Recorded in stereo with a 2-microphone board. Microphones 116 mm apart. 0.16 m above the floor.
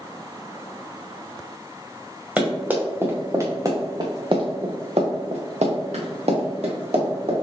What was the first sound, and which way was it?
Running footsteps, 10° right (ahead or behind).